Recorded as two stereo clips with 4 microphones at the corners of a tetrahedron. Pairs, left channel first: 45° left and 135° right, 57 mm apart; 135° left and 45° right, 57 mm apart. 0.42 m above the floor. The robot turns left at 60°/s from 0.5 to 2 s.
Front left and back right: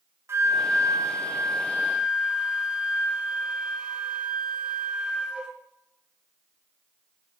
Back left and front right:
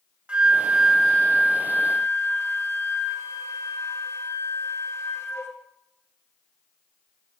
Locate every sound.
0.3 s a flute: 115° right, 1.9 m; by 5.5 s 155° left, 1.9 m